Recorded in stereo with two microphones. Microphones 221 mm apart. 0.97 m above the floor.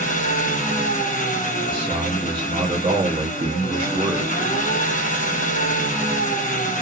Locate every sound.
0.0 s an engine running: 35° left (ahead or behind), 0.8 m
1.7 s a man speaking: 25° right (ahead or behind), 0.7 m